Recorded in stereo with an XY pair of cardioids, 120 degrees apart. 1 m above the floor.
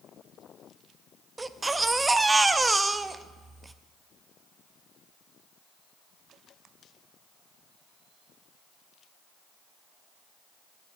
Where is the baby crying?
20° right, 0.5 m.